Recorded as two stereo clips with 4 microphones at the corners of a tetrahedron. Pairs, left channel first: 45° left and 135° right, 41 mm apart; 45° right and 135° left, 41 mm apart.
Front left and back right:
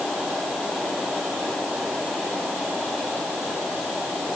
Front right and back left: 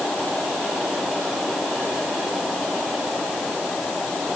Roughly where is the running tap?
I don't hear a running tap.